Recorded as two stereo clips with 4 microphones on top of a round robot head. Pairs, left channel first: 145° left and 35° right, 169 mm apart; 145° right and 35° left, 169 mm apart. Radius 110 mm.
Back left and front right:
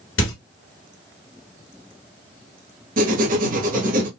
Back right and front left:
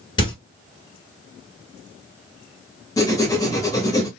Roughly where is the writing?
Right.